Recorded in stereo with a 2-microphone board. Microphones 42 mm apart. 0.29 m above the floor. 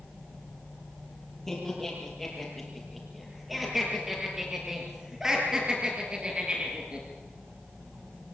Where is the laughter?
5° left (ahead or behind), 7.5 m; by 7.0 s 30° right (ahead or behind), 5.5 m.